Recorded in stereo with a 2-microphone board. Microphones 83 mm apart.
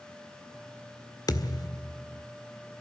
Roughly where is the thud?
Left.